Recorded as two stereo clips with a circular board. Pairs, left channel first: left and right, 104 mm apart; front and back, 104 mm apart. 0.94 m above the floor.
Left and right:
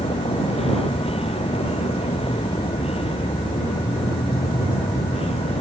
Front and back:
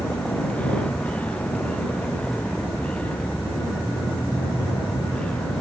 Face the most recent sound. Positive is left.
turn(degrees=80)